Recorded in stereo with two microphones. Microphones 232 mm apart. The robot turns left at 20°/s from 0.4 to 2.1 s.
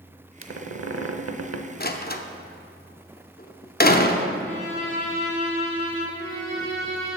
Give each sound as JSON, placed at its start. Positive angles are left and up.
{"t": 0.4, "sound": "a squeak", "side_deg": -65, "distance_m": 0.6}
{"t": 1.8, "sound": "a door slam", "side_deg": 45, "distance_m": 0.6}
{"t": 4.4, "sound": "a violin", "side_deg": -15, "distance_m": 4.0}
{"t": 6.1, "sound": "a violin", "side_deg": -50, "distance_m": 3.0}